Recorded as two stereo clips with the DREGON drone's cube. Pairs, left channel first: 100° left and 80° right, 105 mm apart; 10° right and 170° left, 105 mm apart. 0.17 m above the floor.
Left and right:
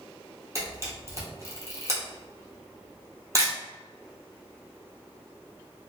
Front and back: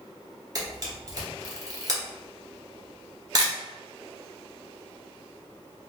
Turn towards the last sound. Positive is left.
turn(degrees=-135)